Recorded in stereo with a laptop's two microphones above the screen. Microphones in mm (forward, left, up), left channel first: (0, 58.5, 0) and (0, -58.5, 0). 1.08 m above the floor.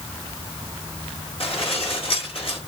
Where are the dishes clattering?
55° left (ahead or behind), 2 m.